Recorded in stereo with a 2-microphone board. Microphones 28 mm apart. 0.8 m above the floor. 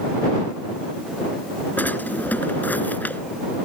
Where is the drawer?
90° left.